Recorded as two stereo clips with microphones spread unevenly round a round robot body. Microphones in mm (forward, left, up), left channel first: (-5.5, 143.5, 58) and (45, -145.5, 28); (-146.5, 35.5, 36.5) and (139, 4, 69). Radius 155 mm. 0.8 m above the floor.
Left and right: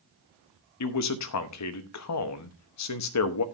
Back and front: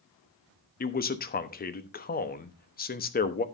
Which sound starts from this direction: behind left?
A man speaking, at 0.8 s.